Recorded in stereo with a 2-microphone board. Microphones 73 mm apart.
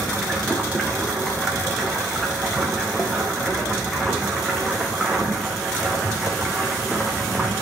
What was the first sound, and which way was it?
Running water, centre (ahead or behind).